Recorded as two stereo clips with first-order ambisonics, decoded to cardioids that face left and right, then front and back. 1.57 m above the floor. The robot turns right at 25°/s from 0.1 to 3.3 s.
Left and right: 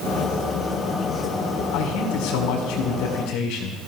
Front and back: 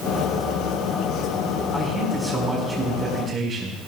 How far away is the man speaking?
About 5 m.